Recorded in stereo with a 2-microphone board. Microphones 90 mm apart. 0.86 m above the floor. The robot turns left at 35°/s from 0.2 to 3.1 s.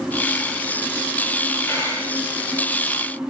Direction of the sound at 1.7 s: 30° left (ahead or behind).